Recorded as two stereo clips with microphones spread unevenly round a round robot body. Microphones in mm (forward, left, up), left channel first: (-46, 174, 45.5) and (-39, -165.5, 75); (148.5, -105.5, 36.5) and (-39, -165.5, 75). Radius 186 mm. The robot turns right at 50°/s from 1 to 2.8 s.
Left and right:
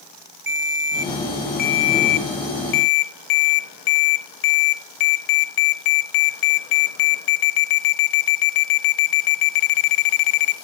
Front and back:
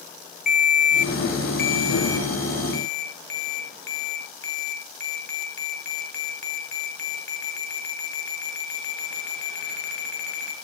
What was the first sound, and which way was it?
A ringtone, 30° right.